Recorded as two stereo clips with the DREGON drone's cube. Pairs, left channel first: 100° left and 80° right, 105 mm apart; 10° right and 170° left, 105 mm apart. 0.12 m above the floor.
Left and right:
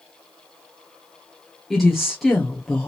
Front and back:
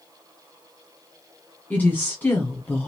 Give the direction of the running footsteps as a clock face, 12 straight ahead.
I don't hear running footsteps.